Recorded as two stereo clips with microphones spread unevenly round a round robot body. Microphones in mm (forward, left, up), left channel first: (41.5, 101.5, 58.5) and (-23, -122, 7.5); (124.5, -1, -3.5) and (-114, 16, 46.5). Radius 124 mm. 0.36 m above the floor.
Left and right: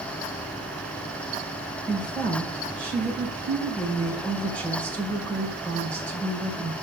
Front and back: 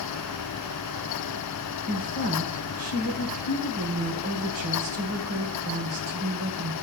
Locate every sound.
1.9 s a woman speaking: 165° left, 2 m